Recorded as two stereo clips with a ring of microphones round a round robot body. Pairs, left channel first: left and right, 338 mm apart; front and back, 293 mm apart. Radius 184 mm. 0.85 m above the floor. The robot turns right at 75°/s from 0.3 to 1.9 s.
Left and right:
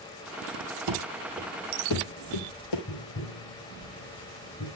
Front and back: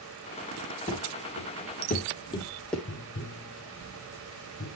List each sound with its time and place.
0.9 s running footsteps: 75° right, 1.5 m; by 2.8 s 85° left, 1.7 m
2.9 s tapping: 50° left, 4 m